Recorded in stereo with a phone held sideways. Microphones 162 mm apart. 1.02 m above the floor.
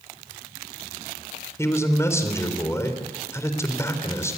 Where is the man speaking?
20° left (ahead or behind), 4 m.